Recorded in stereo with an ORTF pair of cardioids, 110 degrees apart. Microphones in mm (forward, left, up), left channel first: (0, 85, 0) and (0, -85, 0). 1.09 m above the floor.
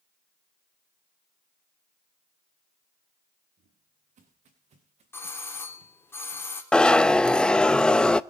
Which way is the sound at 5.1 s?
15° left.